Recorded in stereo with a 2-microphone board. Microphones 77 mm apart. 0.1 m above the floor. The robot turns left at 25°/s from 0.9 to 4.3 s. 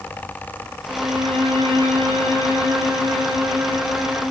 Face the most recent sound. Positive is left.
turn(degrees=-145)